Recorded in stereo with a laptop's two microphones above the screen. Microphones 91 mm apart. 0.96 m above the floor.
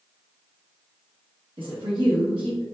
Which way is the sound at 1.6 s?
70° right (ahead or behind).